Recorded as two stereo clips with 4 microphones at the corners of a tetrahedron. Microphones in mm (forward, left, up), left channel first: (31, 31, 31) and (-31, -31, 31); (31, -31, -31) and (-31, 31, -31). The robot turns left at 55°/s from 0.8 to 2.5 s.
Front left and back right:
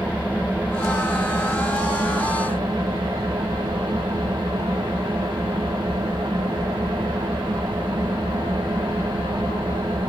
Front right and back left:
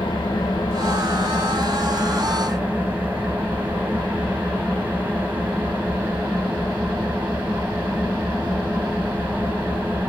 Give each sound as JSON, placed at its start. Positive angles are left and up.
{"t": 0.0, "sound": "an engine running", "azimuth_deg": -65, "distance_m": 1.5}